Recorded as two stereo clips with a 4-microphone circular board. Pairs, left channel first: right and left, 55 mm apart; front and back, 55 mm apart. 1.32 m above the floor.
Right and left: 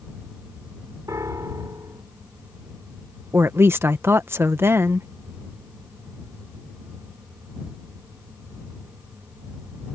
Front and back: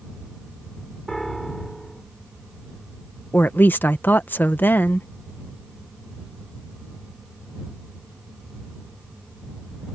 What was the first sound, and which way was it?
A piano, 85° left.